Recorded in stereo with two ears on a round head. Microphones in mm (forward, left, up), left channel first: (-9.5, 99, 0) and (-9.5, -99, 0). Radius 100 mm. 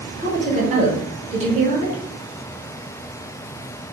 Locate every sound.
0.2 s a woman speaking: 35° right (ahead or behind), 1.0 m